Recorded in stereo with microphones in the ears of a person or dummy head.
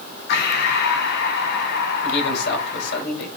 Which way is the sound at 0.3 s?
55° left (ahead or behind).